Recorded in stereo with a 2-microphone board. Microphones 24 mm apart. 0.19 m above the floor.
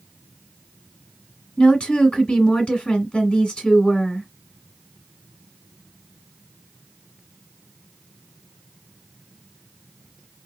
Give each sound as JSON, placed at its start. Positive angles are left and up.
{"t": 1.6, "sound": "a woman speaking", "side_deg": 45, "distance_m": 1.9}